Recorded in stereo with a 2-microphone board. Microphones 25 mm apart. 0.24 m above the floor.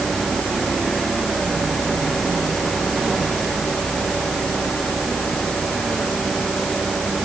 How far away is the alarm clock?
No alarm clock in this recording.